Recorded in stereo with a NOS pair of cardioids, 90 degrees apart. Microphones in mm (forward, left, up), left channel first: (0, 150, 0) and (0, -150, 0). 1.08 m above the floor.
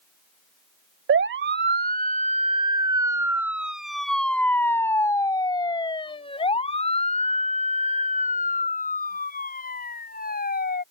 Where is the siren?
45° right; by 10.8 s 30° left.